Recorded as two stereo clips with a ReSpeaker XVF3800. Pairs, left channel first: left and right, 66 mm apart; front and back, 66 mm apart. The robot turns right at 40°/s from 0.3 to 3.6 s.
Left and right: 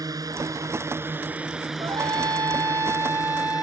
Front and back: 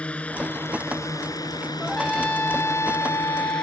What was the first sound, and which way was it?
A drone, 70° right.